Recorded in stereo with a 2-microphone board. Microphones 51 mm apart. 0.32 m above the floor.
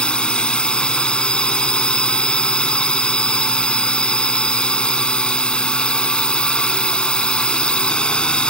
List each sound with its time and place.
0.0 s a drone: 20° left (ahead or behind)